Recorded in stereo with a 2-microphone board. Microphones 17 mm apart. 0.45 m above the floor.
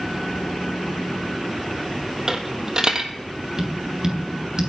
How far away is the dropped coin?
About 1.4 m.